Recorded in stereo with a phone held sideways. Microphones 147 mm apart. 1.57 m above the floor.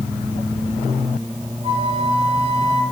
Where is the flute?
40° right (ahead or behind), 7.5 m.